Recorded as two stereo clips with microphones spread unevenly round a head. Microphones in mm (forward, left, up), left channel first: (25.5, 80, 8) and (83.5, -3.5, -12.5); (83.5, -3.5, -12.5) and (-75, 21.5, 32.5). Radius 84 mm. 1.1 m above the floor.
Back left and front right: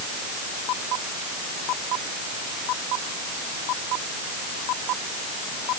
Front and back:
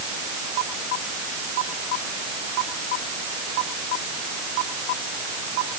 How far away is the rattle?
I don't hear a rattle.